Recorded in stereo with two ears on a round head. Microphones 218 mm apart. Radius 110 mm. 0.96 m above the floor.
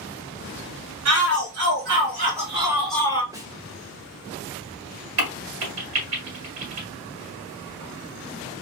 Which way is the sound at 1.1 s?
60° right (ahead or behind).